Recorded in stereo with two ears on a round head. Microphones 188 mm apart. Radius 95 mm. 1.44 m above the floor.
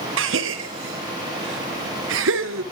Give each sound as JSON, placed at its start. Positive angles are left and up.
{"t": 0.2, "sound": "a gasp", "side_deg": -60, "distance_m": 1.2}